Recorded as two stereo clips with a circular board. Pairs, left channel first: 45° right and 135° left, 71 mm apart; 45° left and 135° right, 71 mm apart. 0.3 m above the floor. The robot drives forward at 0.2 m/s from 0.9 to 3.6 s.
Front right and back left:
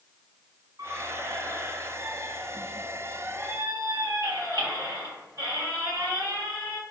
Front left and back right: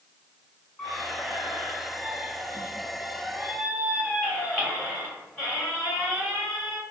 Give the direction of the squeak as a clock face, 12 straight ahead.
8 o'clock.